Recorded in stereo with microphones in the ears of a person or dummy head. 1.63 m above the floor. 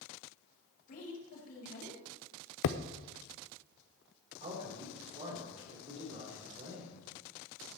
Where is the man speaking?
40° right (ahead or behind), 4.5 m.